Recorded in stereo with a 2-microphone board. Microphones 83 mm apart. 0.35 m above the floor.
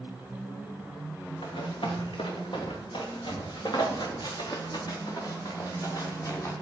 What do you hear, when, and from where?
1.4 s running footsteps: 85° left, 3.5 m; by 6.5 s 40° left (ahead or behind), 4 m